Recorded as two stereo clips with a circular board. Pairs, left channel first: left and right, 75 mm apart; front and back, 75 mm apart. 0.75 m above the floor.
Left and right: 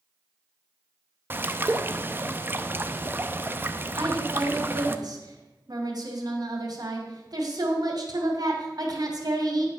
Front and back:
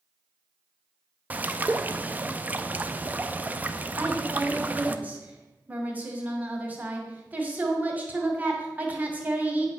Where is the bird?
130° right, 0.6 m.